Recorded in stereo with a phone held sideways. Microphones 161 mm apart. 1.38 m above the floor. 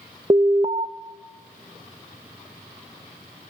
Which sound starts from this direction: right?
An alarm, at 0.3 s.